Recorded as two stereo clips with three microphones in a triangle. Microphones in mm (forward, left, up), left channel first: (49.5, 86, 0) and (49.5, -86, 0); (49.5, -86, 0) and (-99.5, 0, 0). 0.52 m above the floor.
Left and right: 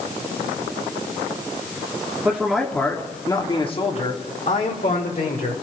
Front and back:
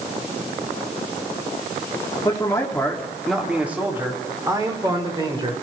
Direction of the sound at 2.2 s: 25° right.